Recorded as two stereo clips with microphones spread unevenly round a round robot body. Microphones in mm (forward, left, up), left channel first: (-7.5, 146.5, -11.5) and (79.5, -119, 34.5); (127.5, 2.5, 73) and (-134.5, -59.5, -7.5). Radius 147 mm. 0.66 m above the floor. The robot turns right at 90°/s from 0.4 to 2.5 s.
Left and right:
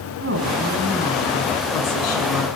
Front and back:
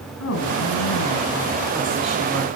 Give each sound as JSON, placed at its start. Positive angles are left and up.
{"t": 0.2, "sound": "a woman speaking", "azimuth_deg": -25, "distance_m": 6.5}